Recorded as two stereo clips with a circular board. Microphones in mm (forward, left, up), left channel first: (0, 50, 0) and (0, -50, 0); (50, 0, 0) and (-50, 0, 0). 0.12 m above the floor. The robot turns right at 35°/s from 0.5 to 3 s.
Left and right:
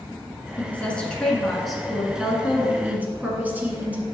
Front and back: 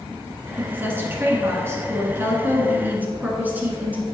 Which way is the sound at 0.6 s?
140° left.